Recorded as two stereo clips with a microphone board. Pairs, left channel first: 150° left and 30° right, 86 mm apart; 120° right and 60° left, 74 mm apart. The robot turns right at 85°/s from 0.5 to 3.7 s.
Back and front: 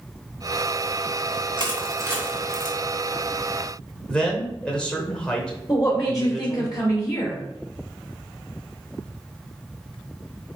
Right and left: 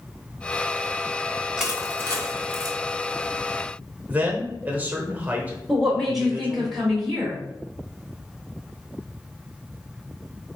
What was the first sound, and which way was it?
Crushing, 20° right.